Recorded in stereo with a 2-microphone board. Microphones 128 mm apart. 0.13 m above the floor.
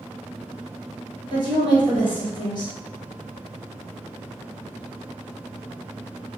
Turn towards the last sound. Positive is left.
turn(degrees=35)  # may be behind; listen again after turning